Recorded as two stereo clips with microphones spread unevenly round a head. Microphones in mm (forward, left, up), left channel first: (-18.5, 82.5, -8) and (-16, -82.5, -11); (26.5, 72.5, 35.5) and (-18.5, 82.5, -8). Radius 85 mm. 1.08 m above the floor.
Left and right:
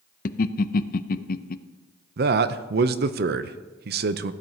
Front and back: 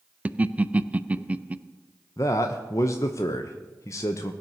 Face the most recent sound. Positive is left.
turn(degrees=-90)